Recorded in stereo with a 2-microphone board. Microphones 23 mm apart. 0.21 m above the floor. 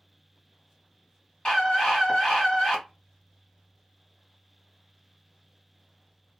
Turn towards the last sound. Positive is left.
turn(degrees=30)  # may be behind; listen again after turning